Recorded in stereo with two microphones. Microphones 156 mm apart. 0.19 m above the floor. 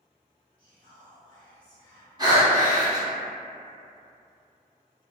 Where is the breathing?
25° right (ahead or behind), 1.1 m.